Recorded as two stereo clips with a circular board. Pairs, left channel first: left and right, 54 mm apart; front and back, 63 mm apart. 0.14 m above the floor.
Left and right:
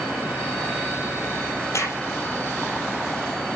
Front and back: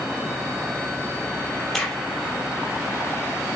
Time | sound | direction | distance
1.7 | a crack | 85° left | 4.5 m